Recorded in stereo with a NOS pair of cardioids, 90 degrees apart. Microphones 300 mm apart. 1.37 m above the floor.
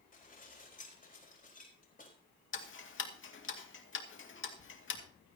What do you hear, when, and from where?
0.1 s dishes clattering: 25° left, 4.5 m
2.5 s ticking: 40° left, 2.5 m